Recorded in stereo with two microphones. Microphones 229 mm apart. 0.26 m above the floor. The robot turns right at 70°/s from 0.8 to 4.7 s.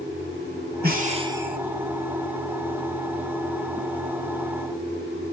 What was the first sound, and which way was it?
Breathing, 55° right.